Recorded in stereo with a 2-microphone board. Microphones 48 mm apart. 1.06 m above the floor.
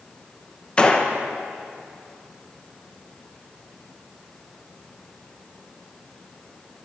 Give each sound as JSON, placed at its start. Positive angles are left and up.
{"t": 0.8, "sound": "a gunshot", "side_deg": 25, "distance_m": 1.0}